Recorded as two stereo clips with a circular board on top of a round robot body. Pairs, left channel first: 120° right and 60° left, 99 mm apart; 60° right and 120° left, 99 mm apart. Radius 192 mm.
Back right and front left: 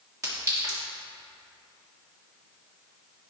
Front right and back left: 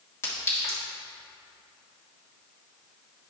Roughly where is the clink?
Ahead.